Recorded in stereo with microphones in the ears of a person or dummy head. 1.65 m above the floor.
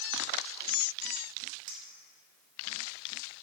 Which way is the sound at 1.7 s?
35° right (ahead or behind).